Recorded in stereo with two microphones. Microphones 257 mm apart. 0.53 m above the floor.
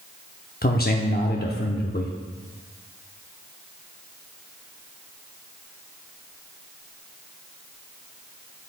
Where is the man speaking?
40° left (ahead or behind), 0.8 m.